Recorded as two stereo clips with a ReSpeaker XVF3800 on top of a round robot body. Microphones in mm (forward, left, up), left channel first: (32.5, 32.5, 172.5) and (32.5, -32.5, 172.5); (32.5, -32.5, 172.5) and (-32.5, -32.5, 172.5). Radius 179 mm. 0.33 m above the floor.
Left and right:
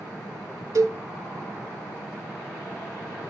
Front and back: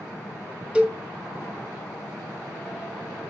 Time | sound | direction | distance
0.8 | a cowbell | 110° right | 2.0 m